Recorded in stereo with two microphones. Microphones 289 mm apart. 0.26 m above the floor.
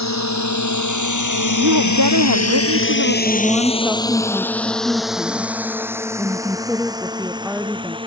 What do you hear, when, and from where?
0.0 s a drone: 65° left (ahead or behind); by 8.1 s 15° right (ahead or behind)
1.6 s a woman speaking: 85° right
3.2 s a woman speaking: 5° right (ahead or behind)